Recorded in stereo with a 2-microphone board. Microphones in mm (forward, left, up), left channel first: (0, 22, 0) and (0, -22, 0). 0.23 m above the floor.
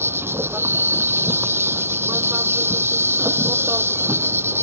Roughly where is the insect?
Right.